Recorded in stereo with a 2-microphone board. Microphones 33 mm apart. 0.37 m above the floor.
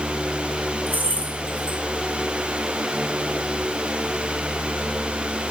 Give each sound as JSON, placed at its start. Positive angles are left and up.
{"t": 0.9, "sound": "keys jangling", "side_deg": -75, "distance_m": 3.5}